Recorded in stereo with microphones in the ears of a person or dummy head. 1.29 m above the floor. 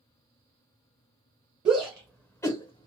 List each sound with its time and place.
1.6 s a shout: 25° right (ahead or behind), 0.7 m; by 2.9 s 35° left (ahead or behind), 0.6 m